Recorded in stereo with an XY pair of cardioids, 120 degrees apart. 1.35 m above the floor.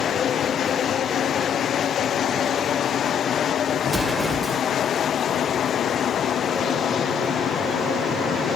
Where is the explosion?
20° right, 2 m.